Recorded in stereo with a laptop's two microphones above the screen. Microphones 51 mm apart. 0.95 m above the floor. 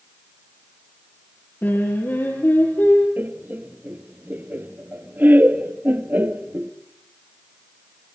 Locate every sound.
1.6 s singing: 45° left (ahead or behind), 8 m
3.2 s laughter: 40° right (ahead or behind), 2.0 m